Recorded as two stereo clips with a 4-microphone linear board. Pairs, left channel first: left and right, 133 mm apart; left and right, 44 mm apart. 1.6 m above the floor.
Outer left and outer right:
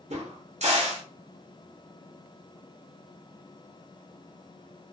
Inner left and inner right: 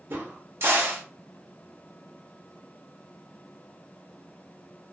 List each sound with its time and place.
0.1 s a crack: 60° right (ahead or behind), 0.8 m